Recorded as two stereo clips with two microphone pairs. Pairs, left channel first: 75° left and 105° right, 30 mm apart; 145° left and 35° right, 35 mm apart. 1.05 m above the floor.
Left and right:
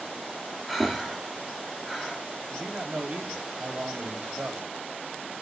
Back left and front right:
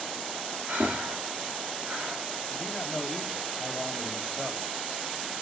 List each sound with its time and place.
0.7 s breathing: 25° right, 2 m
2.5 s a man speaking: 130° right, 3 m